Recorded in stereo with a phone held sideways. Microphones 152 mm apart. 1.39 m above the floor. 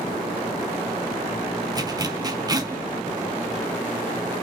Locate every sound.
1.7 s a zipper: 25° right (ahead or behind), 0.8 m